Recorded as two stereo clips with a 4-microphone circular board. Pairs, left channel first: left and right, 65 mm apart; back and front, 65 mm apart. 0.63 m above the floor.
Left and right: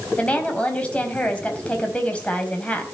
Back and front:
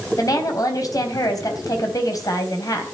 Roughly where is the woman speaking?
Behind.